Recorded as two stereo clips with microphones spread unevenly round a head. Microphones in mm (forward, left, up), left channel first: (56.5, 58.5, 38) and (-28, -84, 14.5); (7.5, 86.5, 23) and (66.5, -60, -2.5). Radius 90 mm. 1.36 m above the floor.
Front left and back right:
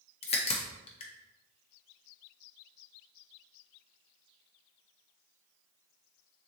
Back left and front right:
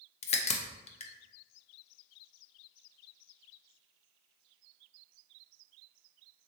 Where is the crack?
95° left, 0.6 m.